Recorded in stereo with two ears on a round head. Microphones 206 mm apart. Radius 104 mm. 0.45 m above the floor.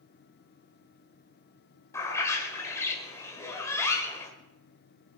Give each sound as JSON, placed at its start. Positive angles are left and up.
{"t": 1.9, "sound": "a bird", "side_deg": 10, "distance_m": 1.8}